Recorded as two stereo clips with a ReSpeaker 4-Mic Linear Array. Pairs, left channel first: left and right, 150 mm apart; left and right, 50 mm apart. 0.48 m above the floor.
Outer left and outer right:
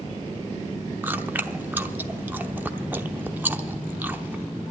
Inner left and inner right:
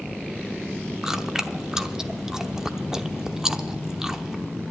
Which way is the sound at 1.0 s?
15° right (ahead or behind).